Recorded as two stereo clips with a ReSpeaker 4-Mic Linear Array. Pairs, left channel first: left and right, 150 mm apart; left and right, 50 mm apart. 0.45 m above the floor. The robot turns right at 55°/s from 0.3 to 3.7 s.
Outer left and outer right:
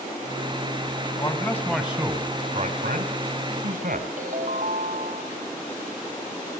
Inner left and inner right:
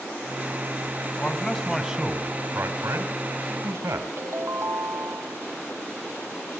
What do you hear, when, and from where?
1.2 s a man speaking: 150° left, 3 m; by 4.1 s 75° right, 3 m
4.2 s a ringtone: 60° right (ahead or behind), 1.7 m